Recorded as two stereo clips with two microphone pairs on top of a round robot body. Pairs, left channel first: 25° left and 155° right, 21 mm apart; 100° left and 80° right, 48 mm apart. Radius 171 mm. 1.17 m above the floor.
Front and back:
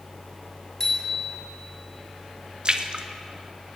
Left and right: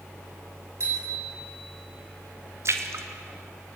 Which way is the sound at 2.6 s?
115° right.